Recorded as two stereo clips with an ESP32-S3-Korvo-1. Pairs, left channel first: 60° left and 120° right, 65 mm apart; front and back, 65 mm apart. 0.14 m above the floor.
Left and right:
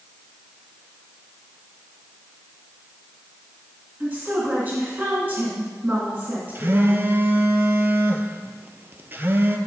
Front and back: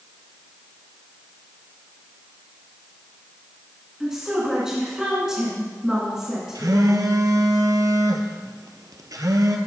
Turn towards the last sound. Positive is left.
turn(degrees=-175)